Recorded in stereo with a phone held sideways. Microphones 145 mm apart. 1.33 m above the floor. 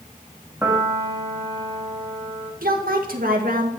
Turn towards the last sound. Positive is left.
turn(degrees=-80)